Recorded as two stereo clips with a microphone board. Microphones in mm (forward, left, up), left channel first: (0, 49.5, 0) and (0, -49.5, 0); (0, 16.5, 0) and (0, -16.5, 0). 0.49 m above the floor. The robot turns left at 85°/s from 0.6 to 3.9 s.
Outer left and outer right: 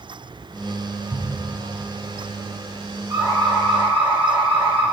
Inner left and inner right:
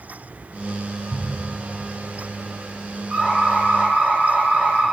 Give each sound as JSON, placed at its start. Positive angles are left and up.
{"t": 1.1, "sound": "a thud", "side_deg": -15, "distance_m": 3.5}
{"t": 3.1, "sound": "an alarm", "azimuth_deg": -20, "distance_m": 4.5}